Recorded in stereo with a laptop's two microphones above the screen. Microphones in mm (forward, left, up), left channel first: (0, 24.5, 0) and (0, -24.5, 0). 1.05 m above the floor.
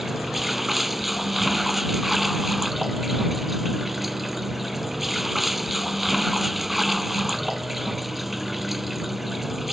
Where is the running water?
Centre (ahead or behind).